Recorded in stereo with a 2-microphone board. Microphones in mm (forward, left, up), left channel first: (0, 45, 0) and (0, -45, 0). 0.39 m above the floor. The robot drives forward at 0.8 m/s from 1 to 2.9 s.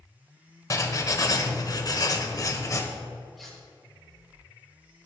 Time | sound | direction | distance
0.7 | writing | 40° left (ahead or behind) | 1.3 m
3.4 | cutlery clinking | centre (ahead or behind) | 4.5 m